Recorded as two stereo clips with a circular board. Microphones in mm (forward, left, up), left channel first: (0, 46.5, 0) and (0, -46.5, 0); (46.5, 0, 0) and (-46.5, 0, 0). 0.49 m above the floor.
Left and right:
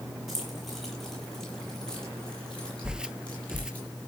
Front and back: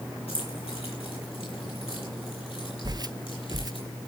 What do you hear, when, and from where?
0.3 s keys jangling: straight ahead, 8 m; by 3.8 s 15° left, 9.5 m
2.8 s footsteps: 170° right, 0.6 m